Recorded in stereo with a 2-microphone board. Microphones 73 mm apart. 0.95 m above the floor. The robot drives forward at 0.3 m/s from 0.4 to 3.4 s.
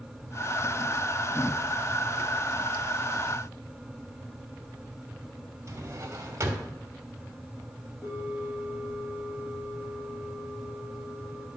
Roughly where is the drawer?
Right.